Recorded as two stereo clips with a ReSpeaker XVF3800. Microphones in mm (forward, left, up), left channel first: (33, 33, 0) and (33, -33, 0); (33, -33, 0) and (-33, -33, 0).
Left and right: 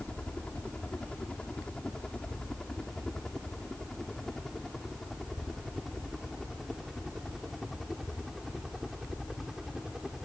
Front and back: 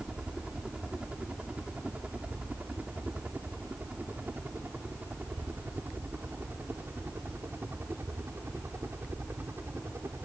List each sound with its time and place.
0.0 s a helicopter: 130° left; by 10.2 s 175° right